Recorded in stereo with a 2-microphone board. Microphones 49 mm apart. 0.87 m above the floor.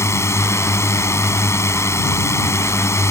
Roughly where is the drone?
Left.